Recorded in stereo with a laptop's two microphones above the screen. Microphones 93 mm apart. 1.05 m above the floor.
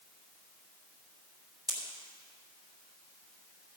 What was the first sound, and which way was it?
A pop, 40° right (ahead or behind).